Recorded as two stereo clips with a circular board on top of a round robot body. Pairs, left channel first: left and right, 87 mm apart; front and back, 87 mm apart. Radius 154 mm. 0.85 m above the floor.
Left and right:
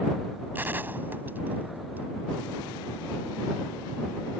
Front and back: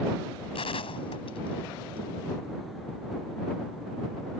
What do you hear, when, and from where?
0.6 s a gunshot: 20° right